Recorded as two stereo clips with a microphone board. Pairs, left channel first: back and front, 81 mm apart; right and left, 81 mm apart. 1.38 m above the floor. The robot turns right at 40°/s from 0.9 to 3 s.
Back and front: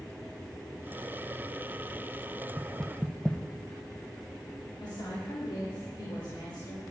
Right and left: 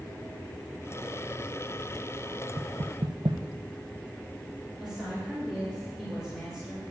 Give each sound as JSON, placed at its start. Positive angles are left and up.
{"t": 2.6, "sound": "knocking", "azimuth_deg": 80, "distance_m": 0.7}
{"t": 4.8, "sound": "a woman speaking", "azimuth_deg": 175, "distance_m": 3.5}